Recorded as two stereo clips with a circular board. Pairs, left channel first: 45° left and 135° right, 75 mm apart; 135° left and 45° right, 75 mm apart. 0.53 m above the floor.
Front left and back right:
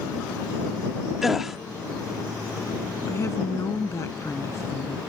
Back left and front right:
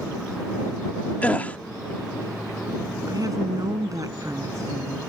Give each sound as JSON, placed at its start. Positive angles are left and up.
{"t": 1.2, "sound": "a gasp", "azimuth_deg": 145}
{"t": 3.1, "sound": "a woman speaking", "azimuth_deg": -5}